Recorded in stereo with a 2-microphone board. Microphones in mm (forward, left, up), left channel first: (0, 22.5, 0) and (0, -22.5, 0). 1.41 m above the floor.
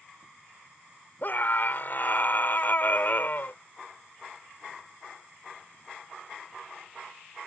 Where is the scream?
50° left (ahead or behind).